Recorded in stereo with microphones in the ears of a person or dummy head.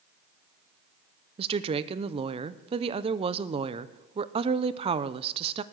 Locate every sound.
1.4 s a woman speaking: 35° right (ahead or behind), 0.7 m